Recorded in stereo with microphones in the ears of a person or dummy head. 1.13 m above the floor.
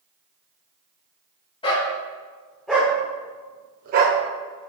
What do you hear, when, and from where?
1.6 s a dog barking: 25° left (ahead or behind), 1.8 m; by 4.7 s 50° right (ahead or behind), 1.9 m